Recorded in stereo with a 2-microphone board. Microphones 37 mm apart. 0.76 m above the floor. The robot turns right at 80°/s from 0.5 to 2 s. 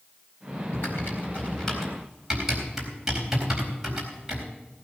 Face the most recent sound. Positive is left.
turn(degrees=-10)  # may be behind; listen again after turning